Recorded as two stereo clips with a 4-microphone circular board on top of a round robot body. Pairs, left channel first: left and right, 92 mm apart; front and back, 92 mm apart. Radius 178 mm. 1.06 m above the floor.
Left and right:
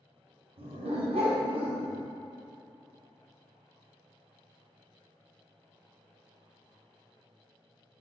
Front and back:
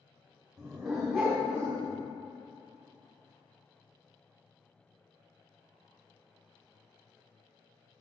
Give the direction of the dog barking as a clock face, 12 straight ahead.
3 o'clock.